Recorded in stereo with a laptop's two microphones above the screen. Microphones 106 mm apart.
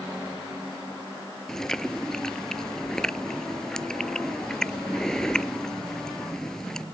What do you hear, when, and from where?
1.5 s chewing: 5° left (ahead or behind)